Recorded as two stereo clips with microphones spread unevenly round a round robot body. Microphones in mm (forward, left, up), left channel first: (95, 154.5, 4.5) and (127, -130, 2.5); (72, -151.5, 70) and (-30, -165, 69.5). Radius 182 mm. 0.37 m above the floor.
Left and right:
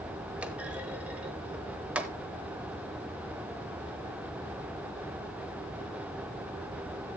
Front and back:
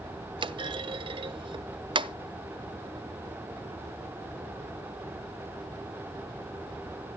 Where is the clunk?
165° right, 0.5 m.